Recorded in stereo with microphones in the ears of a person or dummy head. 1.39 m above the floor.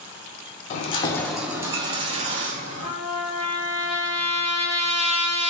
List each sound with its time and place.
0.7 s keys jangling: 50° left (ahead or behind), 0.6 m; by 2.9 s 40° right (ahead or behind), 1.3 m
2.8 s a trumpet: 10° right (ahead or behind), 2.5 m